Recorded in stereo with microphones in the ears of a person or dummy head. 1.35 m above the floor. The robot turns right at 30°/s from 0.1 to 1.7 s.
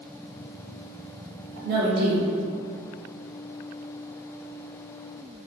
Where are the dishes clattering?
I don't hear dishes clattering.